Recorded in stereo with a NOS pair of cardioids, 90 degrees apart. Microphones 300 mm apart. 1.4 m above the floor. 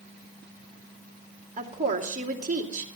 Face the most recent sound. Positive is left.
turn(degrees=-25)